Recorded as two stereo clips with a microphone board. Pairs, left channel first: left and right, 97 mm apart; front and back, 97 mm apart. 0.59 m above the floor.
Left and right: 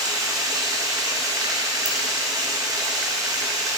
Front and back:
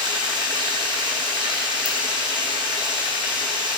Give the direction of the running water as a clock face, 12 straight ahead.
5 o'clock.